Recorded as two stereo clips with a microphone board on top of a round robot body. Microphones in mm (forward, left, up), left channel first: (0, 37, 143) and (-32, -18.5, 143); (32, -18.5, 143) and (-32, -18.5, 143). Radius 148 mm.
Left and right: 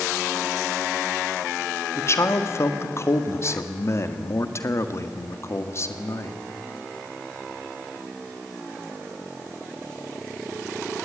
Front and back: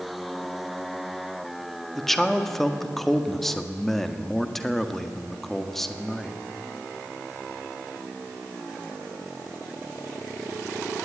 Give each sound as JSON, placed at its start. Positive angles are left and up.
{"t": 1.9, "sound": "a man speaking", "azimuth_deg": 85, "distance_m": 1.8}